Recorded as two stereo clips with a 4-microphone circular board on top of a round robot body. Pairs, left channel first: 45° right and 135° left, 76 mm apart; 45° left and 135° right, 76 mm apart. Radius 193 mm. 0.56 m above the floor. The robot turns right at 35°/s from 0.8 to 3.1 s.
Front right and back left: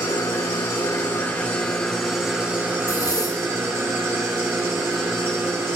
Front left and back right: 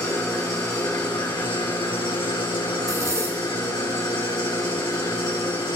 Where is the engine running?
Straight ahead, 4 m; by 5.8 s 80° left, 4 m.